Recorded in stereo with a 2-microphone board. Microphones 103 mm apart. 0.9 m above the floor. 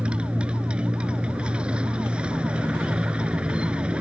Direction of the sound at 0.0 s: 10° right (ahead or behind).